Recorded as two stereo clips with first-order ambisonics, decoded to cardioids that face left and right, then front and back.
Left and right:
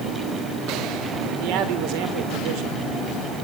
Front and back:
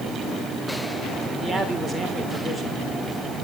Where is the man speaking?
90° right, 3.5 m.